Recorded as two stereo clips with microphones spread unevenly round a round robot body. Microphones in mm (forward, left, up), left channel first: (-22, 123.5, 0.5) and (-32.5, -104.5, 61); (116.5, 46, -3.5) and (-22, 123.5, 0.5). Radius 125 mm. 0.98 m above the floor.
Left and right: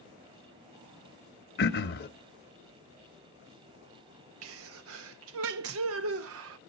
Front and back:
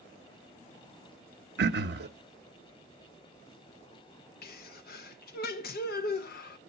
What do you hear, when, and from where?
1.6 s throat clearing: 135° left, 0.7 m
4.4 s a sneeze: 55° right, 0.6 m